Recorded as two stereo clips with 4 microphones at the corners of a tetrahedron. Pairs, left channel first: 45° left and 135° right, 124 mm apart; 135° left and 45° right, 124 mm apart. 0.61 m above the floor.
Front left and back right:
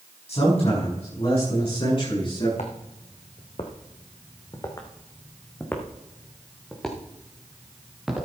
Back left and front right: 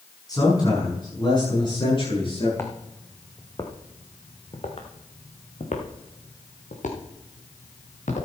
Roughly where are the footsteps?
Ahead left.